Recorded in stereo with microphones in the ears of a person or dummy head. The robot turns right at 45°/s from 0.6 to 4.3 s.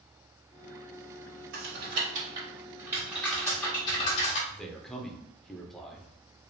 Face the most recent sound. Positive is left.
turn(degrees=0)  # may be behind; listen again after turning